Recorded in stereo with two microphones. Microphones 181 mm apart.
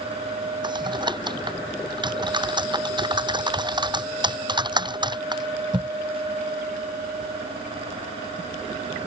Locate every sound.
0.6 s typing on a keyboard: 25° right (ahead or behind)